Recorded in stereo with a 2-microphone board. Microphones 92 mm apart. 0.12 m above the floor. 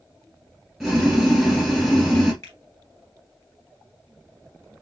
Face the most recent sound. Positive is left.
turn(degrees=30)  # may be behind; listen again after turning